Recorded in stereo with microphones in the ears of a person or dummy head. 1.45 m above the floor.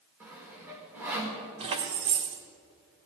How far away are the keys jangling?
About 1.3 m.